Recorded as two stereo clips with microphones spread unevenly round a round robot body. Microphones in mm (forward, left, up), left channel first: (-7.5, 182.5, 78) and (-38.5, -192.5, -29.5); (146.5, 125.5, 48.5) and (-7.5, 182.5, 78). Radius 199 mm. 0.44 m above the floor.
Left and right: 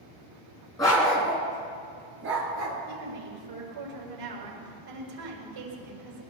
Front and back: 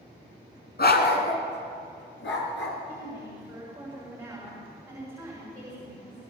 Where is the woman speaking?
115° right, 7 m.